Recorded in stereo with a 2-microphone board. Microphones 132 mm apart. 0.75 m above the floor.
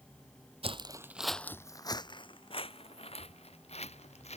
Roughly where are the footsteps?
Right.